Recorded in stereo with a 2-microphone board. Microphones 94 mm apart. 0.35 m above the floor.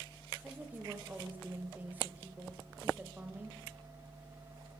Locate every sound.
0.4 s a woman speaking: 20° right (ahead or behind), 1.2 m